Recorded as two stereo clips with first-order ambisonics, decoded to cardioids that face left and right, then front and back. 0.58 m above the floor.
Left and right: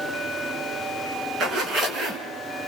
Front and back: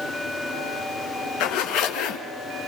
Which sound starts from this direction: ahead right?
A zipper, at 1.4 s.